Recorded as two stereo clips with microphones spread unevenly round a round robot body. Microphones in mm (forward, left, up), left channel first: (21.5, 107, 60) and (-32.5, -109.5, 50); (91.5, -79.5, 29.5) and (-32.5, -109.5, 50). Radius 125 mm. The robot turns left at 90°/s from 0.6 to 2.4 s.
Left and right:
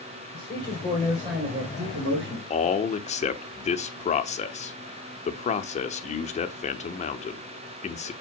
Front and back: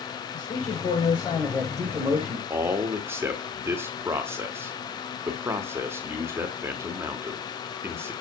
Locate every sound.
0.3 s a man speaking: 35° left, 2.5 m; by 2.4 s 130° right, 2.5 m
2.5 s a man speaking: 120° left, 0.9 m